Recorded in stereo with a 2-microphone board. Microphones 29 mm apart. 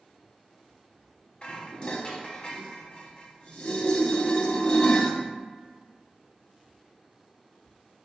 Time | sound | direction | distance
1.4 | dishes clattering | 30° left (ahead or behind) | 0.7 m